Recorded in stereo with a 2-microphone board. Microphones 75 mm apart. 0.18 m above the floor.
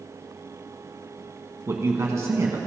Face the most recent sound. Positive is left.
turn(degrees=-40)  # may be behind; listen again after turning